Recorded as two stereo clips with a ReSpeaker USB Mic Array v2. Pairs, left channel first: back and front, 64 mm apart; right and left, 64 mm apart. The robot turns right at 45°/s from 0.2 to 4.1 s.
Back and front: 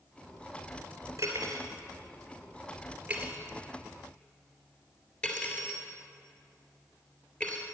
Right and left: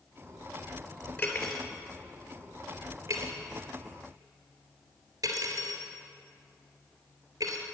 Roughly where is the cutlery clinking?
Ahead.